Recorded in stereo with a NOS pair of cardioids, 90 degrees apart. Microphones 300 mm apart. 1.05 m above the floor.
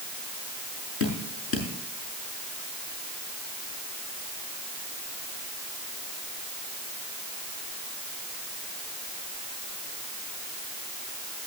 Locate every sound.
1.0 s dripping: 45° left, 6.5 m